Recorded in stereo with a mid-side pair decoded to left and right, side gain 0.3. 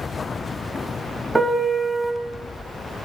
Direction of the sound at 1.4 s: 20° right.